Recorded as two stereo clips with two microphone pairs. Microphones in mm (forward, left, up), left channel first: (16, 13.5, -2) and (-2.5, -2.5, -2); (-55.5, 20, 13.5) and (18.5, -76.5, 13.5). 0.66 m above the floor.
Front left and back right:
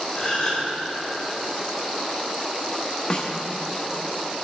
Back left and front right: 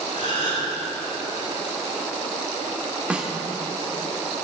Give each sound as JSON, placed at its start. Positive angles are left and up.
{"t": 0.1, "sound": "a gasp", "azimuth_deg": 90, "distance_m": 3.5}
{"t": 3.1, "sound": "a snare drum", "azimuth_deg": 20, "distance_m": 1.2}